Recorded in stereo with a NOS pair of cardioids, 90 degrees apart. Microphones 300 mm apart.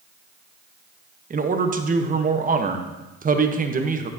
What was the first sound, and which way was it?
A man speaking, 25° right.